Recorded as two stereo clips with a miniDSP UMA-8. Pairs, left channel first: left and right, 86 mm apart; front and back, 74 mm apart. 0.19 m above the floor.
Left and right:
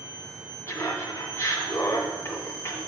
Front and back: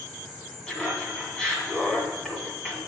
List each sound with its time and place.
0.7 s laughter: 65° left, 1.6 m